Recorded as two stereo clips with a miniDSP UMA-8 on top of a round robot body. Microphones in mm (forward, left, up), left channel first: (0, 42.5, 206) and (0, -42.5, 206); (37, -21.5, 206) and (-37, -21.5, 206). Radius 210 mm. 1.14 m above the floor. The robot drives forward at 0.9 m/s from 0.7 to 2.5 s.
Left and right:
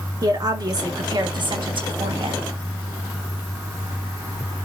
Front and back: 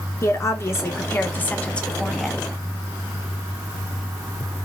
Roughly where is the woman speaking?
Ahead right.